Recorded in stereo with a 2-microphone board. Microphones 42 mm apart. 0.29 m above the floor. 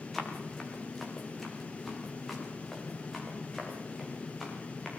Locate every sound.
0.1 s running footsteps: 5° left (ahead or behind), 6 m; by 4.9 s centre (ahead or behind), 13.5 m